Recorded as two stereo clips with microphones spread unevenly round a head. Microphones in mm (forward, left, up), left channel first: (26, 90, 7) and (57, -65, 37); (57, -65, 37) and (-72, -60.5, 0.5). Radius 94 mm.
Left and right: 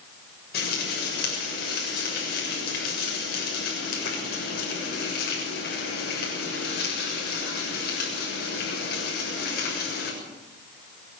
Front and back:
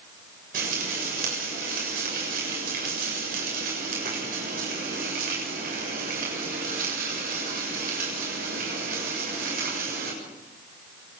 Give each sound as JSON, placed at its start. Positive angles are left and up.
{"t": 0.5, "sound": "frying", "azimuth_deg": 140, "distance_m": 7.0}